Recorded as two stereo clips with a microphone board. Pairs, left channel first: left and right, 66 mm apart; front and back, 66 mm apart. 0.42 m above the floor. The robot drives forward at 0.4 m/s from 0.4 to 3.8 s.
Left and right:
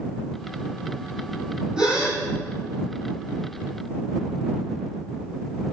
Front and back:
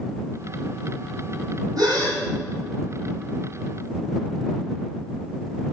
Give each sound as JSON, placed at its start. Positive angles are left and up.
{"t": 1.8, "sound": "a gasp", "azimuth_deg": -170, "distance_m": 5.0}